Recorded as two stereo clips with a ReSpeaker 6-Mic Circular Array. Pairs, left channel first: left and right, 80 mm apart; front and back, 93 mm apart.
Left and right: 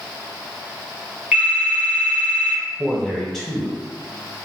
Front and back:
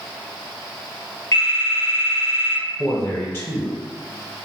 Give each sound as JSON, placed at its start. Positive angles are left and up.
{"t": 1.3, "sound": "a phone ringing", "azimuth_deg": -35, "distance_m": 1.2}
{"t": 2.8, "sound": "a man speaking", "azimuth_deg": 5, "distance_m": 1.0}